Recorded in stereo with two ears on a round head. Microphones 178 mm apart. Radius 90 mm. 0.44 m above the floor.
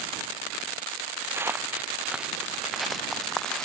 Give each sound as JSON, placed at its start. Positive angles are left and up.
{"t": 1.3, "sound": "footsteps", "side_deg": -15}